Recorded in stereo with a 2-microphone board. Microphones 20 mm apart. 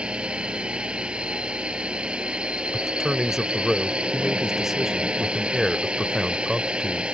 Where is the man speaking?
20° right (ahead or behind).